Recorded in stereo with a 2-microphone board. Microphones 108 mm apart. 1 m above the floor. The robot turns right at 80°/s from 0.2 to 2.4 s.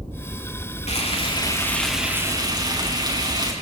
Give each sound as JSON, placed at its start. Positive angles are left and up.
{"t": 0.9, "sound": "frying", "azimuth_deg": 95, "distance_m": 7.0}